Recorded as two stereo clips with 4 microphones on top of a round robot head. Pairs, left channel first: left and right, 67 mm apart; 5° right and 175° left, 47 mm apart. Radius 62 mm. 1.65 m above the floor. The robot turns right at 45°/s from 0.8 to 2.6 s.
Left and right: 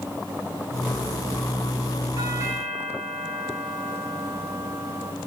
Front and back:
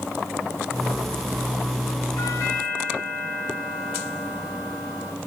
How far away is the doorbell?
About 4 m.